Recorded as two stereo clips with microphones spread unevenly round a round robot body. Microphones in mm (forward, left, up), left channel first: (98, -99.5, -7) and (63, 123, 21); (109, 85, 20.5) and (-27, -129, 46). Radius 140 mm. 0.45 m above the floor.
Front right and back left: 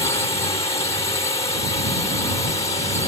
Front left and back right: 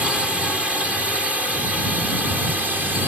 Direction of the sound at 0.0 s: 30° right.